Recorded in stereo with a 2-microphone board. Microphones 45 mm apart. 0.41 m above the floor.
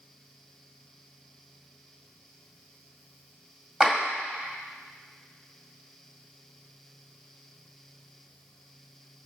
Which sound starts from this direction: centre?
A clap, at 3.8 s.